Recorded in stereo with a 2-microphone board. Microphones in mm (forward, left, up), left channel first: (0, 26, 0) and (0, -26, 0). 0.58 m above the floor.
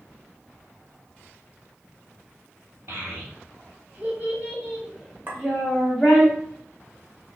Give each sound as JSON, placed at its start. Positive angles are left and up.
{"t": 2.9, "sound": "a child speaking", "side_deg": -55, "distance_m": 0.9}
{"t": 5.3, "sound": "a clink", "side_deg": -40, "distance_m": 0.7}